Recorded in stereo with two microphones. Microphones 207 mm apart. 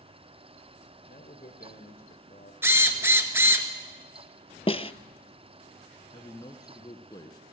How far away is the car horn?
No car horn in this recording.